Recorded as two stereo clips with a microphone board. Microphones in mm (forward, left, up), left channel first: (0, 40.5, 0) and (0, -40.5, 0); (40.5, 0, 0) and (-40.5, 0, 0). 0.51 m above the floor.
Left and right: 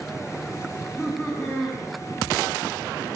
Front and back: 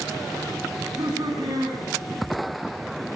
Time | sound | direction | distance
0.7 | laughter | 155° left | 5 m